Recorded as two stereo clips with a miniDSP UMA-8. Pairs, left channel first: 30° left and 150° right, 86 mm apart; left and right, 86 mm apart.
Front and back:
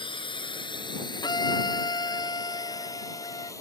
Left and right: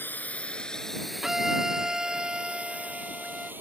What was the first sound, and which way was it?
A drone, 20° left.